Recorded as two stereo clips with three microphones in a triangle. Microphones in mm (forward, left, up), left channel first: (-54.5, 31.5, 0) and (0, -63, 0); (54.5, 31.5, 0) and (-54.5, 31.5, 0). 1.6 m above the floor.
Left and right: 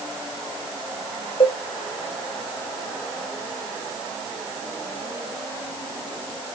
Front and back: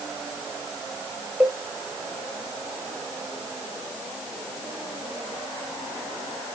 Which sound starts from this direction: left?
A cowbell, at 1.4 s.